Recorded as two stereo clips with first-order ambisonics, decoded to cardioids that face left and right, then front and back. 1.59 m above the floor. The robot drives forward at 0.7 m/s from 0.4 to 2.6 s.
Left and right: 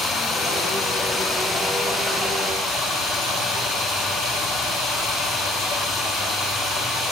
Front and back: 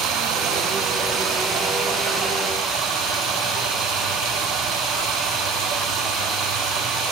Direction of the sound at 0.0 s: 170° left.